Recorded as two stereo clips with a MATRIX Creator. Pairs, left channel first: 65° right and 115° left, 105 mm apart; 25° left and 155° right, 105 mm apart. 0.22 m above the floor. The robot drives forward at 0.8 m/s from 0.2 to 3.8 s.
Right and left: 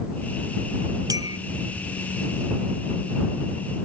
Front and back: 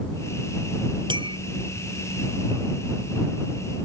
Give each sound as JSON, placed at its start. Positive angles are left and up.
{"t": 1.1, "sound": "a clink", "azimuth_deg": 165}